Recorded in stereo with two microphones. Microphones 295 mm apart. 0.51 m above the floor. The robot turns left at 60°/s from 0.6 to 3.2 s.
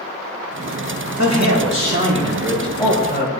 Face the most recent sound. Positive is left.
turn(degrees=140)